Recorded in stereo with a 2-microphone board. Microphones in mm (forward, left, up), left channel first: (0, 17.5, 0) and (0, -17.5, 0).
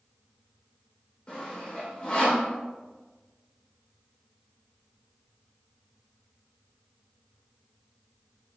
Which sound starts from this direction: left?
Sawing, at 1.3 s.